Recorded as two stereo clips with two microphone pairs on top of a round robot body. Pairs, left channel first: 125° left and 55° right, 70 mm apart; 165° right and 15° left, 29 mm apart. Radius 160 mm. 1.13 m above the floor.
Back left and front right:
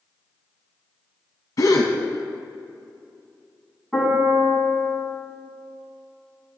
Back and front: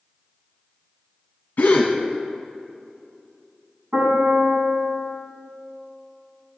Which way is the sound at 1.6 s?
160° left.